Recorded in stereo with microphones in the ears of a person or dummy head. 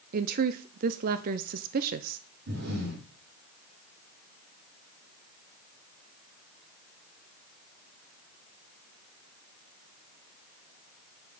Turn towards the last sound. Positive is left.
turn(degrees=-60)  # may be behind; listen again after turning